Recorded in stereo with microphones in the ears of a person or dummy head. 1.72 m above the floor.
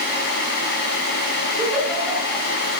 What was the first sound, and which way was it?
A giggle, 5° left (ahead or behind).